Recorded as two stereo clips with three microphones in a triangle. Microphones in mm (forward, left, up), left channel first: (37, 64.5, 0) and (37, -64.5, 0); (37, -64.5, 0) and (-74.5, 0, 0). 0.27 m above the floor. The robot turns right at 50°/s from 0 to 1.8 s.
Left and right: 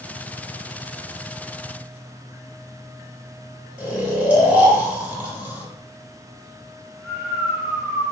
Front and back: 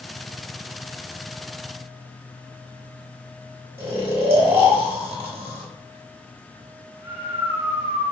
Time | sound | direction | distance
3.8 | snoring | 150° right | 1.5 m